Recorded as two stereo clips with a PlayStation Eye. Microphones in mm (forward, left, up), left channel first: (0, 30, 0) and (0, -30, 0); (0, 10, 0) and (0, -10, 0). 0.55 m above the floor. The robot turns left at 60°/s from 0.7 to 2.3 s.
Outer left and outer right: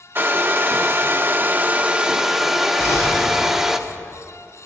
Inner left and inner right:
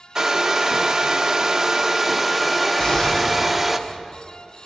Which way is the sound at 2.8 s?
45° left (ahead or behind).